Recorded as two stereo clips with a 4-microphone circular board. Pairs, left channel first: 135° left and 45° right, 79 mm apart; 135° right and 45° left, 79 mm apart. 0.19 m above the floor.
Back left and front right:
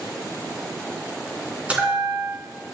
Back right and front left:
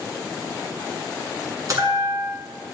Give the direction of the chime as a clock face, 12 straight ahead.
11 o'clock.